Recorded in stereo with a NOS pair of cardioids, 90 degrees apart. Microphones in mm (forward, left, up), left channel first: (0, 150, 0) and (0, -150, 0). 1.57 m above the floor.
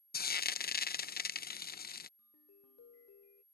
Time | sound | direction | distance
0.1 | frying | 30° left | ?
2.2 | a ringtone | 55° left | ?